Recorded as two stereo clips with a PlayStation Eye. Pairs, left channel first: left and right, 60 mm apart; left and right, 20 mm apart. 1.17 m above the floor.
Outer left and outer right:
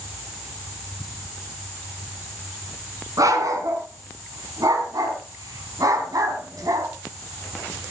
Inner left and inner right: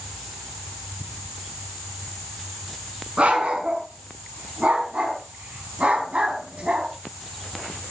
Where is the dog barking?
75° right (ahead or behind), 5 m; by 6.9 s 80° right, 4 m.